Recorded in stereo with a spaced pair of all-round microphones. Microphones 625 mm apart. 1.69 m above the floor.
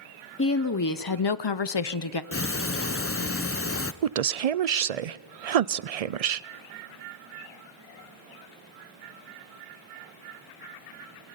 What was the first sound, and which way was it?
A woman speaking, 20° left (ahead or behind).